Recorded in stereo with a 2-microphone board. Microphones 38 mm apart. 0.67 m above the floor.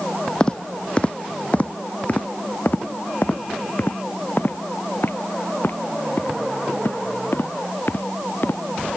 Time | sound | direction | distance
0.4 | footsteps | 25° left (ahead or behind) | ?